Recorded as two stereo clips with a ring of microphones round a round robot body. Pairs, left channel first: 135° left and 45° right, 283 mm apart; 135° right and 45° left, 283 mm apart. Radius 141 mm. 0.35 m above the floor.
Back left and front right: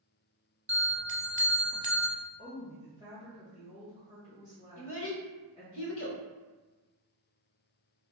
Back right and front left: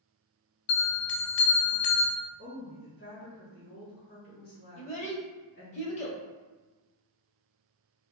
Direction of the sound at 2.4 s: 170° right.